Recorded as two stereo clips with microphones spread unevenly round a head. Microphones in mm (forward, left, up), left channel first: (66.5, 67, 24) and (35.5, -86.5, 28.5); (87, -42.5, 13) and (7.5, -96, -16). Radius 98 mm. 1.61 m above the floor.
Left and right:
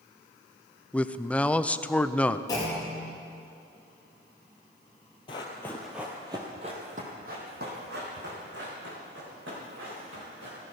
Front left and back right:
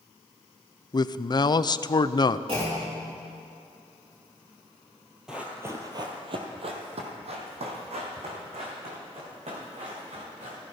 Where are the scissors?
I don't hear scissors.